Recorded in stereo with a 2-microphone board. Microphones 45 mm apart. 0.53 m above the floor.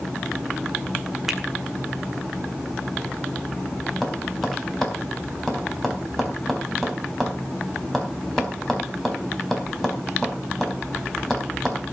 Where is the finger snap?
10° right (ahead or behind), 2.0 m.